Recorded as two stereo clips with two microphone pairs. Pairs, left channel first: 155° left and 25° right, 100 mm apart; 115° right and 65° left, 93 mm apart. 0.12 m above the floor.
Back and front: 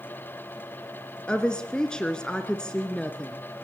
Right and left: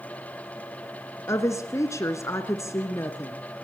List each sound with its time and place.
1.3 s a woman speaking: 130° right, 1.2 m